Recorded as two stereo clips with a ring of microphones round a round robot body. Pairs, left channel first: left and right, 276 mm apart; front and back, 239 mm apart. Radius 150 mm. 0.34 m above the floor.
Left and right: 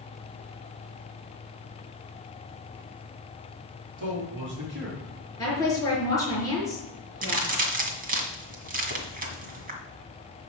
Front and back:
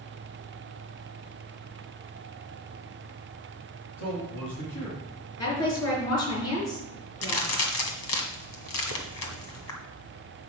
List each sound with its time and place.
4.0 s a man speaking: 45° right, 4 m; by 5.0 s 40° right, 5.5 m
5.4 s a woman speaking: 10° left, 5.5 m
7.2 s a crack: 30° right, 1.8 m